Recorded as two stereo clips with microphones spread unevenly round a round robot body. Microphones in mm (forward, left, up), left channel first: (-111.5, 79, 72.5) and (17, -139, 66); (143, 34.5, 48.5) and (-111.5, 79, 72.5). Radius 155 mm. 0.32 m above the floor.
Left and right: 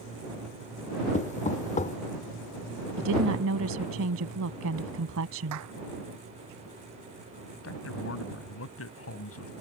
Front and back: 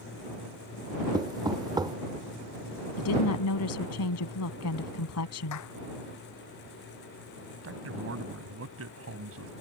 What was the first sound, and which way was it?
Knocking, 100° left.